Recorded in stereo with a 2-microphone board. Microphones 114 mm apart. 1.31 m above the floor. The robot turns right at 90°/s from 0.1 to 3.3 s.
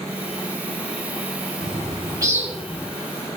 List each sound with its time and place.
1.6 s a bird: 80° right, 3 m; by 2.9 s 30° left, 3 m